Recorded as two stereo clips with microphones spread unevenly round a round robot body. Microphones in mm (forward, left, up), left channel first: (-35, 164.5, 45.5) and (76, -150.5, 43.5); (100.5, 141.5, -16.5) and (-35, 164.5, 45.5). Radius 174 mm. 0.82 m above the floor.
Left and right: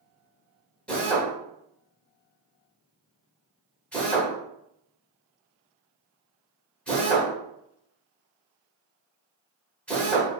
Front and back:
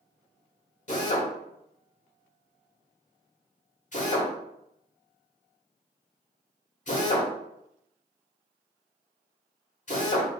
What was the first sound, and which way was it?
A drill, 25° left.